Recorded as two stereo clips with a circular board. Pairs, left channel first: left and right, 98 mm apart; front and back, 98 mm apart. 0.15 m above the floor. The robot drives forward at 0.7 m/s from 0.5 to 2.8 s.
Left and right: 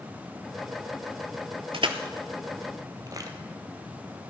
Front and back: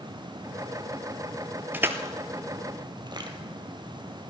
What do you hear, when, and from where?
1.7 s crushing: 110° right, 1.0 m; by 3.3 s 140° right, 1.4 m